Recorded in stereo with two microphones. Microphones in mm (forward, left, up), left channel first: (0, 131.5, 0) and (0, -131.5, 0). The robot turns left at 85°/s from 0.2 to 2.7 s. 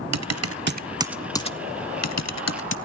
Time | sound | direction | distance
0.1 | typing on a keyboard | 85° right | 0.5 m